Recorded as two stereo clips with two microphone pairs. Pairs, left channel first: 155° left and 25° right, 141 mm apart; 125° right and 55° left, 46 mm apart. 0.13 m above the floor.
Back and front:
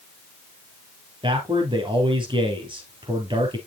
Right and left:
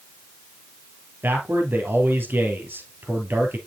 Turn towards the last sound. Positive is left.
turn(degrees=25)